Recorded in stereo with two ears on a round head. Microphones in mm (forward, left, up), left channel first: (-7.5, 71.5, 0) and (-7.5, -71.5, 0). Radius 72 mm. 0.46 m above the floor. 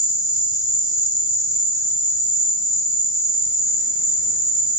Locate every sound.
0.0 s an insect: 60° left (ahead or behind), 3.5 m